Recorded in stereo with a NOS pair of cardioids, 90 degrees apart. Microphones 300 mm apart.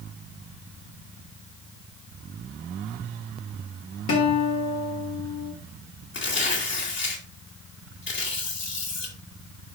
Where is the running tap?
No running tap in this recording.